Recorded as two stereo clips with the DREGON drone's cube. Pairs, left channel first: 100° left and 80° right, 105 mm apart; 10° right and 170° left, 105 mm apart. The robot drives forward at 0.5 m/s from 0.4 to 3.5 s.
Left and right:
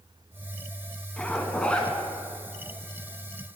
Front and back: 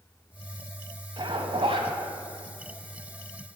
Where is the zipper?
175° left, 0.8 m; by 1.9 s straight behind, 1.1 m.